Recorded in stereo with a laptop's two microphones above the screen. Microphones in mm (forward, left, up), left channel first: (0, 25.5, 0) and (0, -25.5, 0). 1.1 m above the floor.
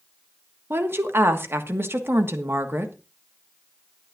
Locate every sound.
0.7 s a woman speaking: 50° right (ahead or behind), 1.4 m